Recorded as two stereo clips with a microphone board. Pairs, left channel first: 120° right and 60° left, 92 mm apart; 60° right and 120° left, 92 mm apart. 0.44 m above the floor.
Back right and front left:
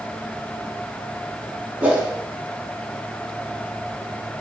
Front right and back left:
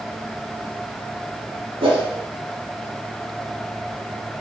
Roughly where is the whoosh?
Behind left.